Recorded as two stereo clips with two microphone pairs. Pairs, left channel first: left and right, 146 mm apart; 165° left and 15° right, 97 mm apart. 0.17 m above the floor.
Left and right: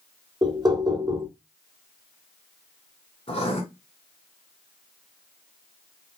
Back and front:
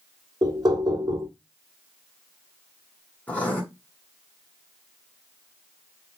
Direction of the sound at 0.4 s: 40° right.